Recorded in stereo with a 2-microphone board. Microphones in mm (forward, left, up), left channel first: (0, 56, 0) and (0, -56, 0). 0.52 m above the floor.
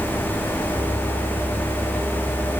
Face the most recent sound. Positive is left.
No sound to turn to.